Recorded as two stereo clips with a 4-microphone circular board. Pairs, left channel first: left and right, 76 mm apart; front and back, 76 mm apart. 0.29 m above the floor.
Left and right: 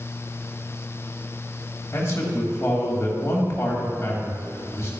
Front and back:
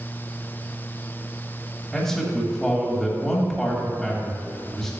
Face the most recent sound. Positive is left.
turn(degrees=80)